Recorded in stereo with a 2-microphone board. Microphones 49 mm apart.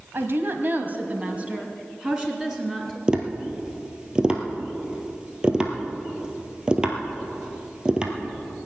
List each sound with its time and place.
0.1 s a woman speaking: 50° right (ahead or behind), 1.4 m; by 3.0 s 10° right (ahead or behind), 3 m
3.1 s tapping: 20° right (ahead or behind), 1.4 m